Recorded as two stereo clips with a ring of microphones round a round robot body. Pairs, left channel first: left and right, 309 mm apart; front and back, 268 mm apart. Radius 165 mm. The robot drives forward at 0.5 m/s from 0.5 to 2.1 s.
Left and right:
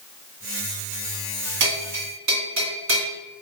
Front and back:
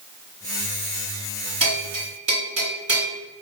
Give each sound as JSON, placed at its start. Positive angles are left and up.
{"t": 1.6, "sound": "a bell", "azimuth_deg": -110, "distance_m": 3.5}